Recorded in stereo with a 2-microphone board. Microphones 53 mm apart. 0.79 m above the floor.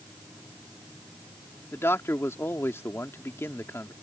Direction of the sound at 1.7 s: 55° left (ahead or behind).